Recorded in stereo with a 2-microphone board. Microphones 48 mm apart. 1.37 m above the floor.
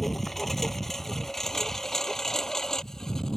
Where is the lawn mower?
5° left (ahead or behind); by 3.4 s 10° left (ahead or behind).